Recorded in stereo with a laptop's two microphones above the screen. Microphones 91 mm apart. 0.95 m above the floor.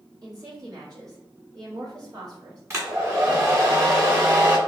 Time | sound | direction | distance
0.2 | a woman speaking | 50° right (ahead or behind) | 1.5 m
2.7 | a hair dryer | 35° right (ahead or behind) | 1.5 m